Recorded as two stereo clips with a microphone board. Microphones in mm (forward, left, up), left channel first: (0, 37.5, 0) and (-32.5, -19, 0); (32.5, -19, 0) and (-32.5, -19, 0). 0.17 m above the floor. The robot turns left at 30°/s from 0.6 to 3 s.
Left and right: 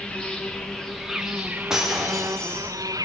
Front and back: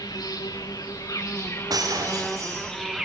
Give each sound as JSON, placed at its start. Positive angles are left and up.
{"t": 0.0, "sound": "an insect", "azimuth_deg": -20, "distance_m": 2.0}
{"t": 1.7, "sound": "breaking glass", "azimuth_deg": 160, "distance_m": 5.5}